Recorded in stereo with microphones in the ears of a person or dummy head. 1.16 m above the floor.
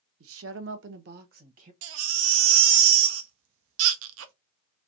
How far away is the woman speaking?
About 0.9 m.